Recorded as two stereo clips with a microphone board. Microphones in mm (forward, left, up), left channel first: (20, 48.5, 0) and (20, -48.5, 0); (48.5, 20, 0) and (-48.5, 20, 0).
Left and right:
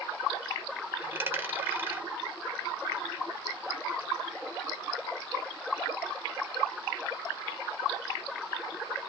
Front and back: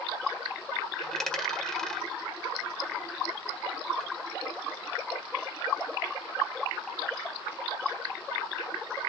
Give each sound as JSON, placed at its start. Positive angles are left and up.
{"t": 1.0, "sound": "a dropped coin", "azimuth_deg": -70, "distance_m": 1.3}